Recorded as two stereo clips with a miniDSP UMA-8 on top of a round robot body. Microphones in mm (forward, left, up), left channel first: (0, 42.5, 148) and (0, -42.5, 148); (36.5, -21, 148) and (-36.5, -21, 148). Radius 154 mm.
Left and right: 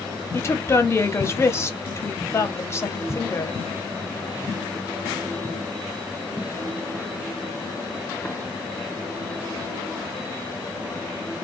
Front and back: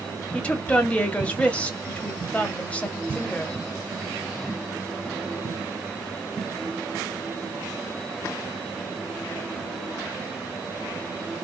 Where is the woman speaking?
60° left, 1.0 m.